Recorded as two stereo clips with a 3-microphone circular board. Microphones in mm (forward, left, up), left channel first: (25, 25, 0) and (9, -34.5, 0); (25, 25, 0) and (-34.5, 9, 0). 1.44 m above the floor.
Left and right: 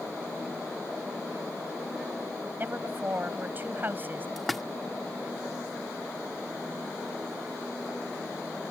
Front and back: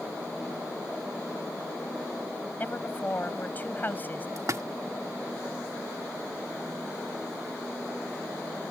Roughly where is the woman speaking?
Ahead right.